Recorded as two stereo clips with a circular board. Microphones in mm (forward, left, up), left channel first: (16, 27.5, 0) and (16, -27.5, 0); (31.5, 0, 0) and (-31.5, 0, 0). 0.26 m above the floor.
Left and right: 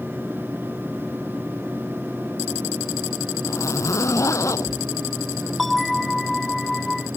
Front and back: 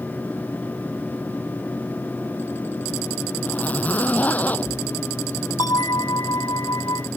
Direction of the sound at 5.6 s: Straight ahead.